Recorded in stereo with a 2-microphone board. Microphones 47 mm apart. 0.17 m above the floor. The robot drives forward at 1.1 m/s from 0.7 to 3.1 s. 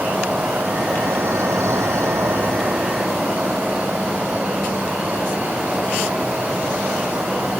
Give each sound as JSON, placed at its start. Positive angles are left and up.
{"t": 0.0, "sound": "an insect", "side_deg": -40, "distance_m": 1.5}